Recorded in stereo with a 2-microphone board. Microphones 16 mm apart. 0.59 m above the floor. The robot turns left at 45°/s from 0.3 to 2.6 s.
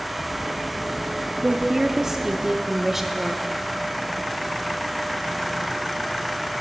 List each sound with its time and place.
1.4 s a woman speaking: 85° right, 0.8 m; by 3.5 s 140° right, 0.8 m